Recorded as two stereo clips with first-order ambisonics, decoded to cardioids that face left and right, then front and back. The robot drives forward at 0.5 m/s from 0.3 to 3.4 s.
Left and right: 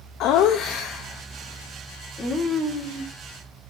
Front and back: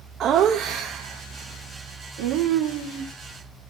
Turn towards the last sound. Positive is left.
turn(degrees=165)